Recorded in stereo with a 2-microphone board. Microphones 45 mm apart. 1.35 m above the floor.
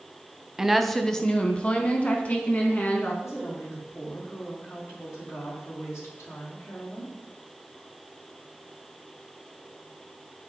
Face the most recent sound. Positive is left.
turn(degrees=85)